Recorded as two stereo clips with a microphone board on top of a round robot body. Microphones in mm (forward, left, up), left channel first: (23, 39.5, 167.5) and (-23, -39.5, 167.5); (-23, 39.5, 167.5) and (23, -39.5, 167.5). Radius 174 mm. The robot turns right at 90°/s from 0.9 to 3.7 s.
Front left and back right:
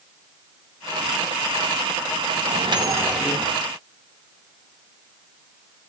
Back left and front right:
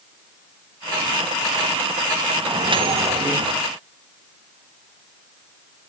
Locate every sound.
2.4 s a microwave: 110° right, 3 m; by 3.6 s 10° right, 3 m